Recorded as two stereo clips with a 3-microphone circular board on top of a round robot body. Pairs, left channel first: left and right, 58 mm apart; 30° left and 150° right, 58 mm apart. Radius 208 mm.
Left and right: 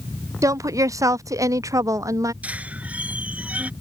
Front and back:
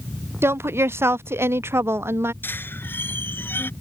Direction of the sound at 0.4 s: 105° right.